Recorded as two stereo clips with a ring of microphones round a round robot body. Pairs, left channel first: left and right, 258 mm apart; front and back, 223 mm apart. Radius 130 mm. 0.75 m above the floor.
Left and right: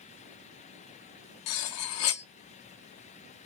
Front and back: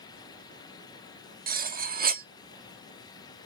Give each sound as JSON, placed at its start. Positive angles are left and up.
{"t": 1.5, "sound": "cutlery clinking", "azimuth_deg": 125, "distance_m": 0.6}